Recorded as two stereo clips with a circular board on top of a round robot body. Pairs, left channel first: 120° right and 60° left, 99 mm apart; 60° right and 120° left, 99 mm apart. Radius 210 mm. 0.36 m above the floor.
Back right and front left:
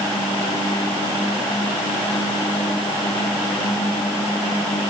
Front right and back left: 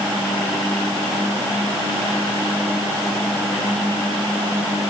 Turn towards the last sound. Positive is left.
No sound to turn to.